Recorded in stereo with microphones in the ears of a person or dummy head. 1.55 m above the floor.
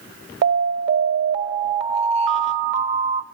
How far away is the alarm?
About 1.6 m.